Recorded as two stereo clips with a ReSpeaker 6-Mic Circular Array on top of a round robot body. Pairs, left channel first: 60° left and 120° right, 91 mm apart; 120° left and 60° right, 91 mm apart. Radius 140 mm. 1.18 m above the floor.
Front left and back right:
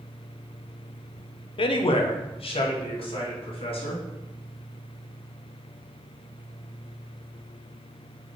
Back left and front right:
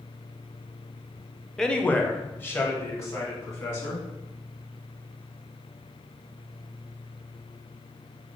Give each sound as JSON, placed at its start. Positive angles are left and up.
{"t": 1.6, "sound": "a man speaking", "azimuth_deg": 35, "distance_m": 0.5}